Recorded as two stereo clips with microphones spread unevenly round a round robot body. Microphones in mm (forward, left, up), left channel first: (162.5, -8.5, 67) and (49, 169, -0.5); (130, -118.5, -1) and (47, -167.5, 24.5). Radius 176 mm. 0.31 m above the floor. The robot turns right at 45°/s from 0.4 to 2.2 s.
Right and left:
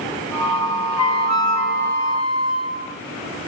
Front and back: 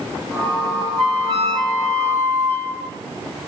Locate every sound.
1.0 s a flute: 150° right, 2.5 m; by 3.0 s 95° right, 2.5 m